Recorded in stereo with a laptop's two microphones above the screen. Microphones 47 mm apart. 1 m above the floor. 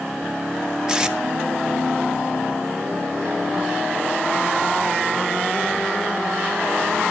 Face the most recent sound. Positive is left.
turn(degrees=-15)  # may be behind; listen again after turning